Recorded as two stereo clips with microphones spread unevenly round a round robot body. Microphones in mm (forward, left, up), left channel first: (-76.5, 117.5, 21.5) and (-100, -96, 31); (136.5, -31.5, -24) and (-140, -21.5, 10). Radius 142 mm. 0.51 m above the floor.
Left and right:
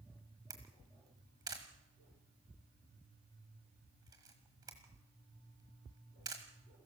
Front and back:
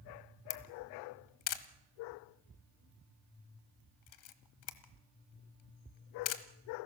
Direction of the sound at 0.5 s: 20° right.